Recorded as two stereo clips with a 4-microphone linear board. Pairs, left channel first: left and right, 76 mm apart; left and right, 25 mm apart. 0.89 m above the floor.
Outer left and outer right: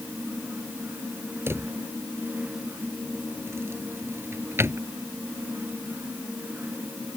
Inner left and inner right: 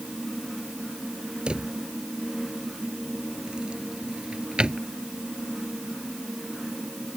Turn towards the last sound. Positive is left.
turn(degrees=-30)  # may be behind; listen again after turning